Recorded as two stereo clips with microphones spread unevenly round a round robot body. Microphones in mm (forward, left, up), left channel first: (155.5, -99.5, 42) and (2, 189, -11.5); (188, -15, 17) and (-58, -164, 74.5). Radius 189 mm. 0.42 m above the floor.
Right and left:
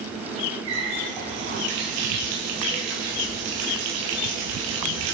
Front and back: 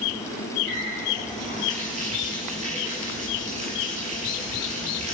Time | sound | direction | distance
0.7 | a running tap | 140° left | 6 m